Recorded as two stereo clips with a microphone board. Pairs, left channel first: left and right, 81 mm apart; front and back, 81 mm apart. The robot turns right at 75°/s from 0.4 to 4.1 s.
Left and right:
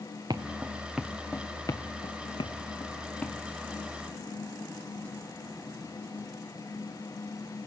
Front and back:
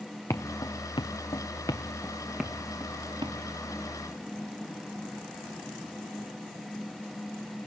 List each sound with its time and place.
0.3 s footsteps: 50° right, 1.9 m; by 3.3 s 175° left, 4 m